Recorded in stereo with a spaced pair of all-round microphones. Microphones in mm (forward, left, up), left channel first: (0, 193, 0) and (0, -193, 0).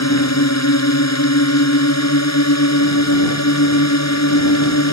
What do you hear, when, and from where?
0.0 s a drone: 45° left (ahead or behind)